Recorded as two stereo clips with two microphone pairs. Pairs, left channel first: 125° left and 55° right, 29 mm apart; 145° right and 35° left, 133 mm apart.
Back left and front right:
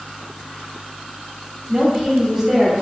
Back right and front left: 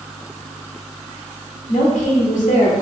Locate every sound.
1.7 s a woman speaking: 115° right, 1.0 m